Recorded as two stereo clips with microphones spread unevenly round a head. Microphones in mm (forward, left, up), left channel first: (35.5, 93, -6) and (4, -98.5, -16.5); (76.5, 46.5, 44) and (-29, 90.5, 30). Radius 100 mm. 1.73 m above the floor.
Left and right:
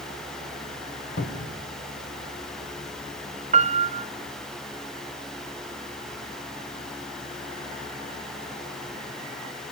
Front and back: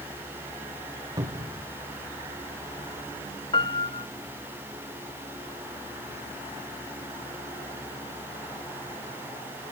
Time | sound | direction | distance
1.2 | a cupboard door | 95° left | 2 m
3.5 | a piano | 60° right | 0.6 m